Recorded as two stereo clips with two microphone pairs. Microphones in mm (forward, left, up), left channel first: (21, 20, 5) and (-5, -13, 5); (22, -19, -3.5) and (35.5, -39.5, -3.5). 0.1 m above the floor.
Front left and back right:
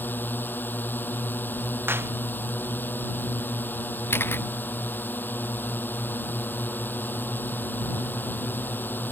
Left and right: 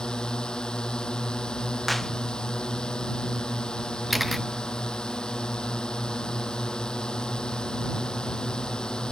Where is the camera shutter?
35° left.